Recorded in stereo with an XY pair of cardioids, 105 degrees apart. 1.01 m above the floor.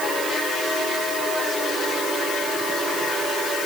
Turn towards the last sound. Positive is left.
No sound to turn to.